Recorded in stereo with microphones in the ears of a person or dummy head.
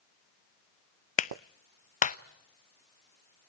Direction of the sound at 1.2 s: 35° left (ahead or behind).